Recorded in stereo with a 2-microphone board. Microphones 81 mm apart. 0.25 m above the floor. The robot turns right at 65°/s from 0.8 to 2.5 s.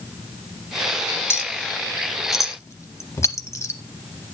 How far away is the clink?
About 0.7 m.